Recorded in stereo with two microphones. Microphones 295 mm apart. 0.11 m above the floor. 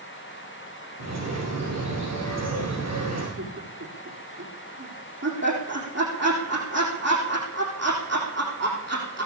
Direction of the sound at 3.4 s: 55° right (ahead or behind).